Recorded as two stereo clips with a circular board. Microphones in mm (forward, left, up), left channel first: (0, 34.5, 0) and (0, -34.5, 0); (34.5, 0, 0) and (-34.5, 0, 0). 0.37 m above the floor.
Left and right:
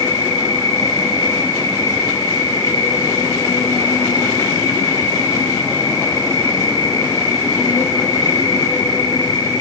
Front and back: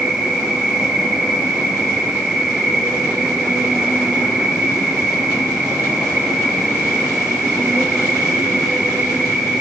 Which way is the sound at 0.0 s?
95° left.